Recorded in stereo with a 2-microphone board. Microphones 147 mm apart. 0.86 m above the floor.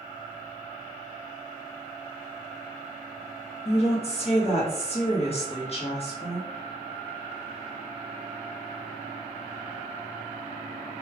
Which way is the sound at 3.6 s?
45° left (ahead or behind).